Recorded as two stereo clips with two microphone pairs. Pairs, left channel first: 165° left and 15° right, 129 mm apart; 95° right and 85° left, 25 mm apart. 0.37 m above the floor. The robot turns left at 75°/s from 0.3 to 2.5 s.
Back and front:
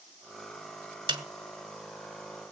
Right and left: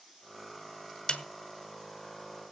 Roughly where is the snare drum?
Ahead right.